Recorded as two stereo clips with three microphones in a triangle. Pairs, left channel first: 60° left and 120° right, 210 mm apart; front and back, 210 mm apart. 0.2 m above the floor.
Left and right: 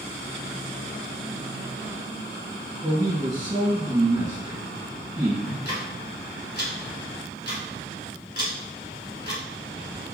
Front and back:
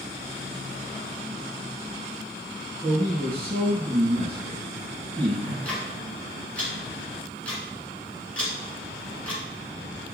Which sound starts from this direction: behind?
A man speaking, at 2.8 s.